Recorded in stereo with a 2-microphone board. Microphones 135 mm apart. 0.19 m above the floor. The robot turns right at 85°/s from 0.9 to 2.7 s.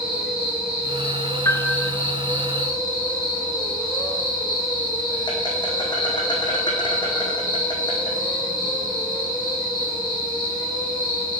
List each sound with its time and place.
0.0 s an insect: 5° right, 2.5 m; by 11.4 s 145° left, 2.5 m
1.4 s a piano: 155° left, 0.6 m; by 1.9 s 165° right, 0.6 m